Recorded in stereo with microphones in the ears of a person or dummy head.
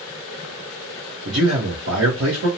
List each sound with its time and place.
1.2 s a man speaking: 85° right, 0.9 m